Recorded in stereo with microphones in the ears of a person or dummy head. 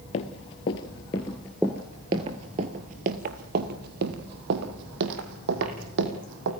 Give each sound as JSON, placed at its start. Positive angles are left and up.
{"t": 0.1, "sound": "running footsteps", "side_deg": 35, "distance_m": 1.5}